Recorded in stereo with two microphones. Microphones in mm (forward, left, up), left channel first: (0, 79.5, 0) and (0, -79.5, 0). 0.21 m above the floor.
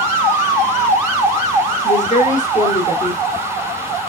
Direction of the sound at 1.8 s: 55° left (ahead or behind).